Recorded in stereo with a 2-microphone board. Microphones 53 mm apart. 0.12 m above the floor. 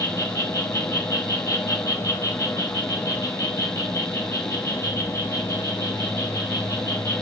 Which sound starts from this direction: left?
An insect, at 0.0 s.